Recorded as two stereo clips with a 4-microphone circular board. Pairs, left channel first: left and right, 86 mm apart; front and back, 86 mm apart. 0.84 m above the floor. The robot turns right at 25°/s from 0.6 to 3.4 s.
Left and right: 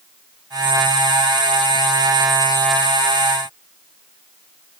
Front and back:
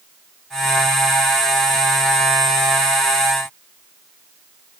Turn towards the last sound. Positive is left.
No sound to turn to.